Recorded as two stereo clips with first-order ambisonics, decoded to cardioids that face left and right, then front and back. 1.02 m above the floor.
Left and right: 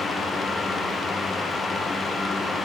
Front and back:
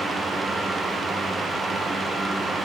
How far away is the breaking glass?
I don't hear breaking glass.